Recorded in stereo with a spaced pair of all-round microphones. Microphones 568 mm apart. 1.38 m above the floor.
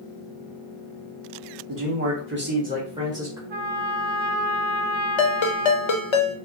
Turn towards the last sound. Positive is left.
turn(degrees=55)  # may be behind; listen again after turning